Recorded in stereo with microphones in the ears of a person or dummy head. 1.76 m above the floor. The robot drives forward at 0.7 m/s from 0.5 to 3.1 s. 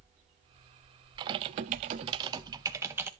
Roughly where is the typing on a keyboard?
Right.